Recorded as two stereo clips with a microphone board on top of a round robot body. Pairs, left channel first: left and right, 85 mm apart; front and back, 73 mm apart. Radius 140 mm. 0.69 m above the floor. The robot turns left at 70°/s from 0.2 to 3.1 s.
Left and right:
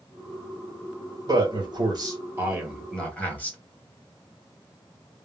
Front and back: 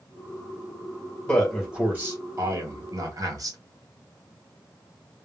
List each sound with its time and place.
1.3 s a man speaking: 70° right, 1.9 m; by 3.6 s 160° left, 1.9 m